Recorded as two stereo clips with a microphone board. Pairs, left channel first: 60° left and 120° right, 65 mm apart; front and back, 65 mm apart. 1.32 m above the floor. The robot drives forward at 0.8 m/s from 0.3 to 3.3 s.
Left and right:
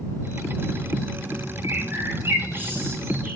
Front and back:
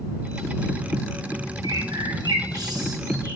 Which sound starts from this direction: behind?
A bird, at 1.6 s.